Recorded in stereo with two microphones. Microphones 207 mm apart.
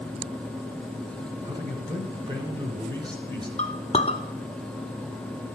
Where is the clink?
30° left (ahead or behind), 0.7 m.